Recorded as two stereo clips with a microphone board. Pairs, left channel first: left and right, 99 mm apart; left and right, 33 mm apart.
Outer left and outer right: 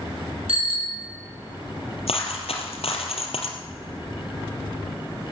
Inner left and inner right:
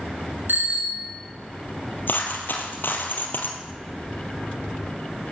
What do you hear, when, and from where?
0.5 s a bicycle bell: 85° right, 4.5 m
2.1 s a dropped coin: 85° left, 2.5 m